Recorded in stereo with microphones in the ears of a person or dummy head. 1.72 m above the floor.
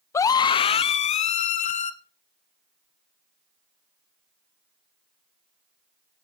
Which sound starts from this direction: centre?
A scream, at 0.1 s.